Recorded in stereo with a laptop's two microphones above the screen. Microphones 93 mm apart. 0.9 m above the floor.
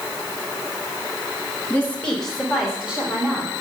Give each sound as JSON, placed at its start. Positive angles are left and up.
{"t": 1.7, "sound": "a woman speaking", "side_deg": 25, "distance_m": 1.6}